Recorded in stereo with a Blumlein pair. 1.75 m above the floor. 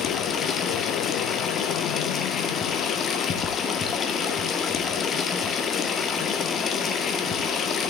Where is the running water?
25° left, 1.7 m.